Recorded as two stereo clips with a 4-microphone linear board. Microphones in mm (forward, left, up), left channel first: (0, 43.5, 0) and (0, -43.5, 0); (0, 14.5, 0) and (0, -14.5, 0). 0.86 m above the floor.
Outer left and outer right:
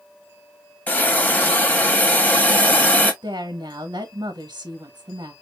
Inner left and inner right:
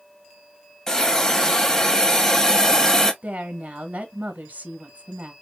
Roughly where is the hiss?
Centre.